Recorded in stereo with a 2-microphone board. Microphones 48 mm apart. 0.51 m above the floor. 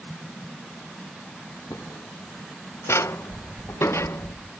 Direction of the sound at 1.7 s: 75° left (ahead or behind).